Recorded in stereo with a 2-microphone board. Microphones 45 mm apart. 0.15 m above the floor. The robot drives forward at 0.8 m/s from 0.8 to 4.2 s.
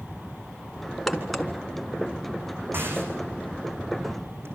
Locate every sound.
1.1 s a crack: centre (ahead or behind), 2 m
2.7 s a rattle: 55° right (ahead or behind), 7 m; by 4.5 s 65° right (ahead or behind), 6 m